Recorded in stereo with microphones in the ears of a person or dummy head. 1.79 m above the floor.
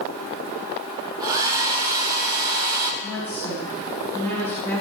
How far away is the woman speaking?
About 5.5 m.